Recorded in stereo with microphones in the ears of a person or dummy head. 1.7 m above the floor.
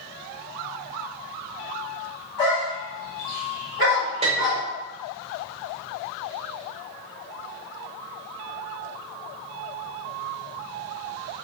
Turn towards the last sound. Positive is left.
turn(degrees=-30)  # may be behind; listen again after turning